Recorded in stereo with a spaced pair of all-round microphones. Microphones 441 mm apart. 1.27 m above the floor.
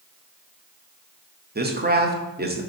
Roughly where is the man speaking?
Right.